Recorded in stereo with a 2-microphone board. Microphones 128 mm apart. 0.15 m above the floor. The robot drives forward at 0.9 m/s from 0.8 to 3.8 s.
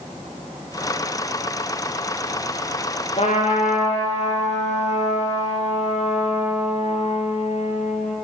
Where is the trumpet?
55° left (ahead or behind), 3 m; by 8.2 s 60° left (ahead or behind), 3 m.